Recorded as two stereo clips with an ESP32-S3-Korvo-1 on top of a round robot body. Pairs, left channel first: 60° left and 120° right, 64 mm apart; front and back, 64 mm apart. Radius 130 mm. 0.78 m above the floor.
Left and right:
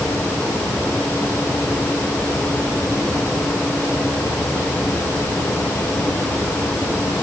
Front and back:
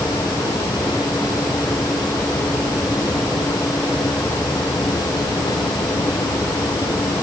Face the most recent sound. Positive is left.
No sound to turn to.